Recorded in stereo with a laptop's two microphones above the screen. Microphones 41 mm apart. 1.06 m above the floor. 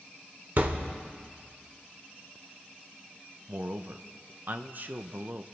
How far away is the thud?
About 1.2 m.